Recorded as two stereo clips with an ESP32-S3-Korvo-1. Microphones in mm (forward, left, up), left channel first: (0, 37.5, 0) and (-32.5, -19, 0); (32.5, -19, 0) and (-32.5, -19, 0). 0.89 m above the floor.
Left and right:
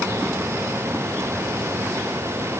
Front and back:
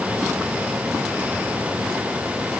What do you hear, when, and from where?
Only background noise.